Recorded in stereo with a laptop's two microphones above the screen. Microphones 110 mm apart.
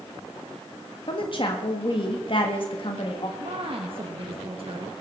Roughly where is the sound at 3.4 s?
Right.